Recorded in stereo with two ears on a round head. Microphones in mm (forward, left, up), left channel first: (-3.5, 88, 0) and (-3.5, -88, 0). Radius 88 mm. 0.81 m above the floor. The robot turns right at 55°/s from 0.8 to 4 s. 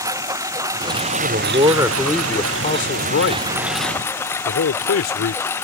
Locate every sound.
0.0 s a lawn mower: 165° right; by 5.6 s 10° left
1.1 s a man speaking: 55° right; by 5.4 s 105° left